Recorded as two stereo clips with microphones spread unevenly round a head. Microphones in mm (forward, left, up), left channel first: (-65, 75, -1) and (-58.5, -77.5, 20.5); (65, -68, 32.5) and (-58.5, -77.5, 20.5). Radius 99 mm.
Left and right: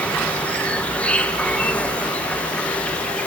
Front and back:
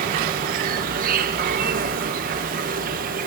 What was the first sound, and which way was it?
An insect, straight behind.